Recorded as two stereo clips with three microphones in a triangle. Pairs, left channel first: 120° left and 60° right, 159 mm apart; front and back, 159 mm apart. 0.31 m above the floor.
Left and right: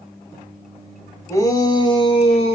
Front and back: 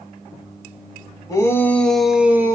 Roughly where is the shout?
Ahead left.